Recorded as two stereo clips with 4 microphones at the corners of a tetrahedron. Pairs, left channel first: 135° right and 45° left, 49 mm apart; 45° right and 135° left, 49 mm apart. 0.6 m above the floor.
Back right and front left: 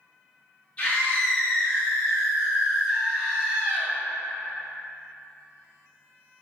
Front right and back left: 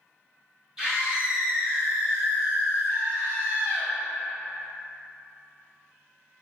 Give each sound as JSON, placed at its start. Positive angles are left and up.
{"t": 0.8, "sound": "a scream", "azimuth_deg": -160, "distance_m": 1.2}